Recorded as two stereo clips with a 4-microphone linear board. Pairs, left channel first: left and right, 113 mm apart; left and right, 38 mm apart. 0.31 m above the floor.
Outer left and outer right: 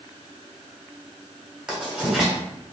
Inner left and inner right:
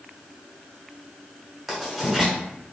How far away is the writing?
About 1.9 m.